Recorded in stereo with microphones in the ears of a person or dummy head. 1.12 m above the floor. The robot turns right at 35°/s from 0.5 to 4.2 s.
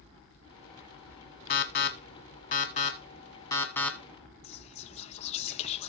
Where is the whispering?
35° left (ahead or behind), 0.7 m.